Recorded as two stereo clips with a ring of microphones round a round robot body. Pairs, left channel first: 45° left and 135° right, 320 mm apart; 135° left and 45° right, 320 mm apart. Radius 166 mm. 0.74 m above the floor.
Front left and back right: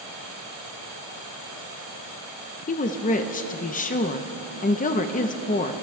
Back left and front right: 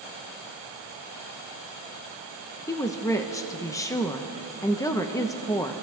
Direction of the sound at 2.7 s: 70° left.